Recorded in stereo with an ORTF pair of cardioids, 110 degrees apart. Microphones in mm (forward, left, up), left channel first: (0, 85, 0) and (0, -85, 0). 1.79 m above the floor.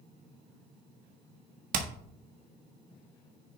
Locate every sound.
1.7 s hammering: 55° right, 1.6 m